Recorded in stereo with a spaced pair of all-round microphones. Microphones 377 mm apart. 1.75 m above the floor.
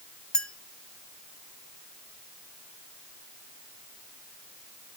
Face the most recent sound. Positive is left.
turn(degrees=0)  # may be behind; listen again after turning